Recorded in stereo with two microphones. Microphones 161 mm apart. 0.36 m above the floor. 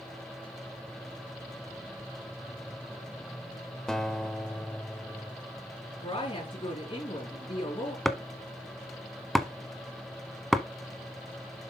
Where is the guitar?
5° left (ahead or behind), 0.8 m.